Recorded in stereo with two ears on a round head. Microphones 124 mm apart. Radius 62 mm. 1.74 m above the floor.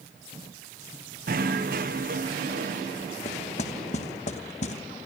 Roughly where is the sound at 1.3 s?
Right.